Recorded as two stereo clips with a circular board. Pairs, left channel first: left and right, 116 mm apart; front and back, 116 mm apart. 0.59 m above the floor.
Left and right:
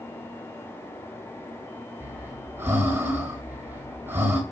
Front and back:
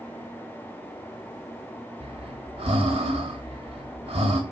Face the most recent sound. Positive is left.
turn(degrees=-160)